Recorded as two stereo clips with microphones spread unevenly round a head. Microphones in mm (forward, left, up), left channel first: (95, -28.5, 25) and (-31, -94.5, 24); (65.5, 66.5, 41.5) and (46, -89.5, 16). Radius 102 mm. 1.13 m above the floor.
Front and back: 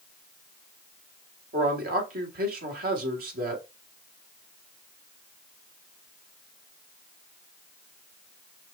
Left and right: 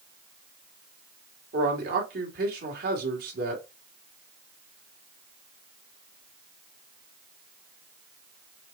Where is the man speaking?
135° right, 1.8 m.